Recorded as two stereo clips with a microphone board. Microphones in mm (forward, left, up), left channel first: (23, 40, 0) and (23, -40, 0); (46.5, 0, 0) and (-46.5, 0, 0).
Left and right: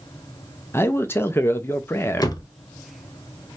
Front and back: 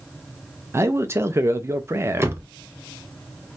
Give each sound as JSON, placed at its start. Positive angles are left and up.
{"t": 0.7, "sound": "a man speaking", "azimuth_deg": 135, "distance_m": 0.7}
{"t": 2.2, "sound": "a door slam", "azimuth_deg": 120, "distance_m": 0.7}